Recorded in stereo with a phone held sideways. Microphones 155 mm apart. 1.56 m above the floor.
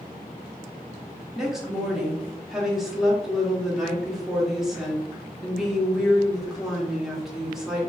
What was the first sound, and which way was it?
A woman speaking, 5° right (ahead or behind).